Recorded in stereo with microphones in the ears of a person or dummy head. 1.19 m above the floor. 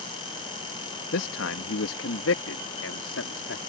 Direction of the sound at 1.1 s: 65° left (ahead or behind).